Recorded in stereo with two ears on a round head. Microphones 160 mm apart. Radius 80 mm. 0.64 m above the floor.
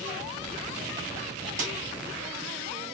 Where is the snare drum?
50° right (ahead or behind), 2.5 m.